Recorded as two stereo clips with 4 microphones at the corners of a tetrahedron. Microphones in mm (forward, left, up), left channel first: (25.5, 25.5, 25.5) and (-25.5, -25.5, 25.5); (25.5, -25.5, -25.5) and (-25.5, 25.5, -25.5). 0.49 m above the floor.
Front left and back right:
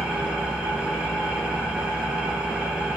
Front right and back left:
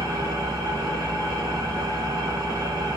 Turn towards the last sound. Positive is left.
turn(degrees=150)